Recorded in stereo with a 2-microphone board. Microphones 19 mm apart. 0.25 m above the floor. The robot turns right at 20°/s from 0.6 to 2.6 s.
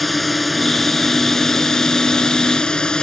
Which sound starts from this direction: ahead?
A drone, at 0.0 s.